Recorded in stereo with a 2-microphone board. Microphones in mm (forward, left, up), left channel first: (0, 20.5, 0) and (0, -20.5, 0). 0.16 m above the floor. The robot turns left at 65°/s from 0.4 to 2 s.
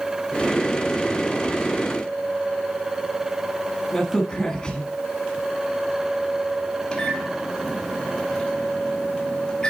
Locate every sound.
3.9 s a crack: 15° left (ahead or behind), 1.1 m
6.9 s a microwave: 20° left (ahead or behind), 1.4 m